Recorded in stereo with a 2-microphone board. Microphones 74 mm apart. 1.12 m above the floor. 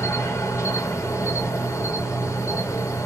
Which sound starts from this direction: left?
An insect, at 0.0 s.